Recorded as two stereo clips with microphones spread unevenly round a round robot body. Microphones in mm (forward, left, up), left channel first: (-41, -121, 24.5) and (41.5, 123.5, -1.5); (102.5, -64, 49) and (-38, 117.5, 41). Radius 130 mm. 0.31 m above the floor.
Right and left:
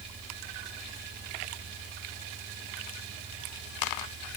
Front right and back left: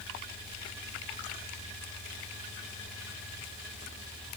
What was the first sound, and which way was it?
Only background noise.